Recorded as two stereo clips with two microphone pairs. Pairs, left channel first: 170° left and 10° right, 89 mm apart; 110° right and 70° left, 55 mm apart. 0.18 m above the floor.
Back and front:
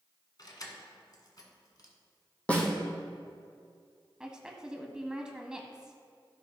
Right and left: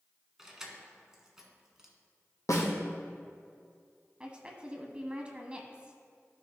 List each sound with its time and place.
0.4 s keys jangling: 150° left, 1.4 m
2.5 s a snare drum: 115° right, 2.5 m
4.2 s a woman speaking: 55° left, 1.1 m